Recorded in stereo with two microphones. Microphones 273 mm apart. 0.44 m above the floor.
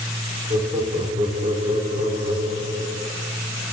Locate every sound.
0.5 s laughter: 25° right (ahead or behind), 0.8 m